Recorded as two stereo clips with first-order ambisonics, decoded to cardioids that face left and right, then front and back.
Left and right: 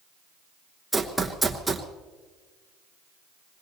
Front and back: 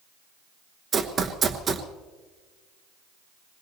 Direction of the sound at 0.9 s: Straight behind.